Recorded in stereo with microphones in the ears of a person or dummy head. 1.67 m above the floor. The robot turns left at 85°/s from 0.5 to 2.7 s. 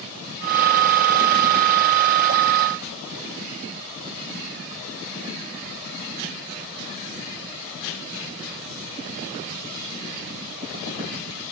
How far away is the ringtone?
No ringtone in this recording.